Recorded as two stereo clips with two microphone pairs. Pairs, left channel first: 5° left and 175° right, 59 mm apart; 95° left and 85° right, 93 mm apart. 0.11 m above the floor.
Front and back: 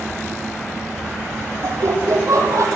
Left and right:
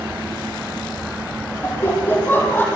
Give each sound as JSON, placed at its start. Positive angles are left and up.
{"t": 1.6, "sound": "laughter", "azimuth_deg": 160, "distance_m": 5.0}